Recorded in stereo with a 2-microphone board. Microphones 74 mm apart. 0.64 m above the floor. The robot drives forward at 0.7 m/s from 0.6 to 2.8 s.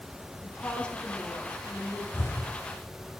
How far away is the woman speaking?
About 1.0 m.